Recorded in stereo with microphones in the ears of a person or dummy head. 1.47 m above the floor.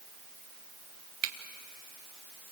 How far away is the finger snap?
About 1.8 m.